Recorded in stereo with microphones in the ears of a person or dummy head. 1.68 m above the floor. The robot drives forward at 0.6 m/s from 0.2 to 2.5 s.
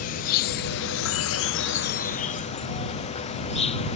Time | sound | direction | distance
0.0 | an insect | 45° left (ahead or behind) | ?